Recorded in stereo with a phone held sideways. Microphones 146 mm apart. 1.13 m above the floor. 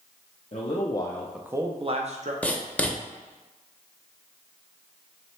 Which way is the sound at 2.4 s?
10° left (ahead or behind).